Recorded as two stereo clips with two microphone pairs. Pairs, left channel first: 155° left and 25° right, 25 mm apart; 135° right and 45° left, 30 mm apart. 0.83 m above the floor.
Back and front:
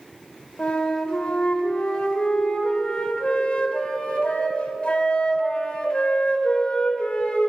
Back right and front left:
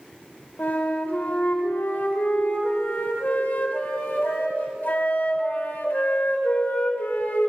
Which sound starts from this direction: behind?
A flute, at 0.6 s.